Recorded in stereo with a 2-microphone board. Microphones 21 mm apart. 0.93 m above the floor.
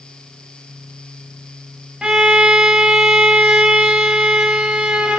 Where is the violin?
55° right (ahead or behind), 1.0 m.